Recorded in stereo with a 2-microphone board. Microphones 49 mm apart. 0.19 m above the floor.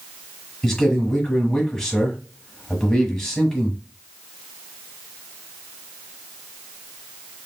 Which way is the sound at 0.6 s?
10° left (ahead or behind).